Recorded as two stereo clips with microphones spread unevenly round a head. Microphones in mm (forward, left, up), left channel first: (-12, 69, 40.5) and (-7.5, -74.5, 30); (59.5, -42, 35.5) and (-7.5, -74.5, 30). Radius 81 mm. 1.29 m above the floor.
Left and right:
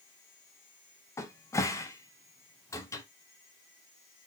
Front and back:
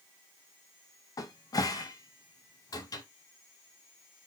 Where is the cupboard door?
25° left, 0.6 m.